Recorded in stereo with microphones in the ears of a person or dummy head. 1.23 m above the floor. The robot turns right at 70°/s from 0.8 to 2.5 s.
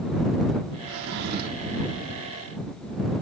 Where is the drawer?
110° right; by 1.8 s 45° right.